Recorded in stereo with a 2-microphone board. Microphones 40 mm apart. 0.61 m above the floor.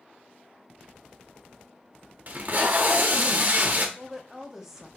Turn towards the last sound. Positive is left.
turn(degrees=-10)  # may be behind; listen again after turning